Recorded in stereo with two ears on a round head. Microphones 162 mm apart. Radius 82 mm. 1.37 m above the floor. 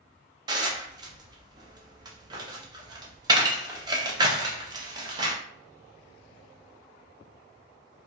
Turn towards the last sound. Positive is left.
turn(degrees=-25)  # may be behind; listen again after turning